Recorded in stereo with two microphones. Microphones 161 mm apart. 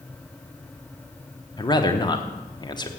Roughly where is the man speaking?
Left.